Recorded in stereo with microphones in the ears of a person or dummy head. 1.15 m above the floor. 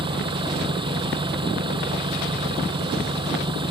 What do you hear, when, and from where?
0.0 s an engine running: 25° right (ahead or behind)